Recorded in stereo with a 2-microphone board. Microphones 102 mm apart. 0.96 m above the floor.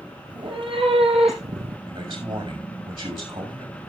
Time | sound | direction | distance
0.3 | a cat meowing | 45° right (ahead or behind) | 2.5 m
1.9 | a man speaking | 55° right (ahead or behind) | 6 m